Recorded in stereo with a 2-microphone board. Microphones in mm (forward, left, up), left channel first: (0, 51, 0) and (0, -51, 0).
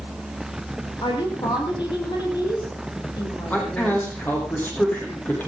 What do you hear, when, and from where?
1.0 s a woman speaking: 50° left (ahead or behind), 6.5 m; by 4.1 s 40° left (ahead or behind), 5.5 m
3.5 s a man speaking: 20° left (ahead or behind), 6.5 m